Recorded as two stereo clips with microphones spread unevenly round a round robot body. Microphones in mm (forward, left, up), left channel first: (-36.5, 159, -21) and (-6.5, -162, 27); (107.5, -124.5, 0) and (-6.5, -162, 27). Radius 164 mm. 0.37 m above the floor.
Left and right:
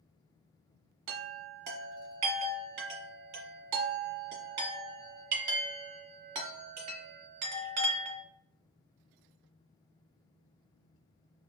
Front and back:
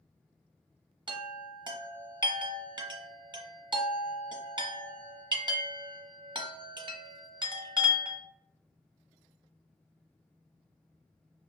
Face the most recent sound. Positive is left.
turn(degrees=-105)